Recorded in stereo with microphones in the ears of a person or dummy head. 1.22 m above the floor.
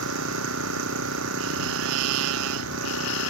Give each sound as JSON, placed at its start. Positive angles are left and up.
{"t": 0.0, "sound": "an engine running", "side_deg": -80}